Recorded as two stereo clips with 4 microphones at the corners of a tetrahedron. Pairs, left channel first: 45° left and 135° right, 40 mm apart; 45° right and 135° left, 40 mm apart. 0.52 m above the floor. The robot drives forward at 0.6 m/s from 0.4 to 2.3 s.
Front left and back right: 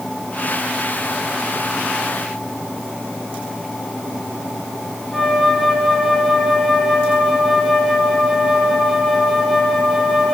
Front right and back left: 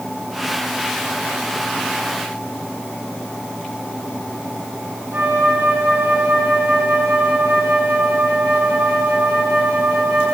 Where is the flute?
140° left, 1.7 m.